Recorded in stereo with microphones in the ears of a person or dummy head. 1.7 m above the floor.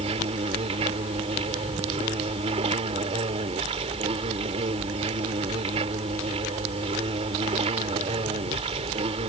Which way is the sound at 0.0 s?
20° right (ahead or behind).